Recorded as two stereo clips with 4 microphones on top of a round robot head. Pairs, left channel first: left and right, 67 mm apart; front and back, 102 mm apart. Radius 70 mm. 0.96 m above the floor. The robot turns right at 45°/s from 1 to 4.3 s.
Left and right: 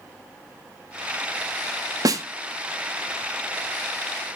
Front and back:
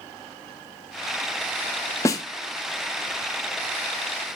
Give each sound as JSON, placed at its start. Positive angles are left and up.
{"t": 2.0, "sound": "a snare drum", "azimuth_deg": -65, "distance_m": 1.0}